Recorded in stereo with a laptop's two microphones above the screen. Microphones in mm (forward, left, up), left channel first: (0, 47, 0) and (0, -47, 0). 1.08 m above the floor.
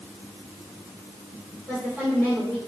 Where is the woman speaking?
15° right (ahead or behind), 3.5 m.